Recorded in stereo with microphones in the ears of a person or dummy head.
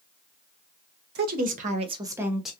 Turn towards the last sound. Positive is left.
turn(degrees=5)  # may be behind; listen again after turning